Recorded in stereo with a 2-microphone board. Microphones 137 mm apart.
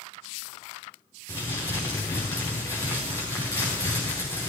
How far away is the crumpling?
About 5 m.